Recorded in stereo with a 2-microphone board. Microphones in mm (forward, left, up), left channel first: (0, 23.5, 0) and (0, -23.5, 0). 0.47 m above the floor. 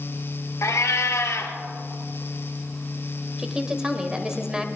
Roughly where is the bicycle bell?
I don't hear a bicycle bell.